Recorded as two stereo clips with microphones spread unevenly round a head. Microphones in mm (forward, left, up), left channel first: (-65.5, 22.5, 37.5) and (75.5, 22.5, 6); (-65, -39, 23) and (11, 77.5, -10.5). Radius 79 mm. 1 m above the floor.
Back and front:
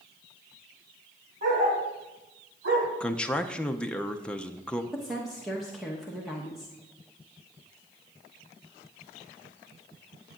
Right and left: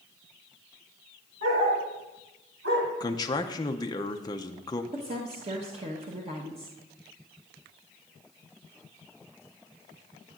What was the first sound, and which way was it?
A dog barking, 40° left.